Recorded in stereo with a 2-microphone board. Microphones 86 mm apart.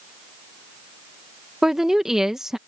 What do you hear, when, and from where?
1.6 s a woman speaking: 5° right (ahead or behind)